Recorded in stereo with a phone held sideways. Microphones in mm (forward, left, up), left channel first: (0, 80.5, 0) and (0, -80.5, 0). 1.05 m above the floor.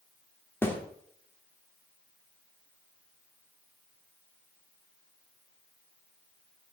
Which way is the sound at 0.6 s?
15° left (ahead or behind).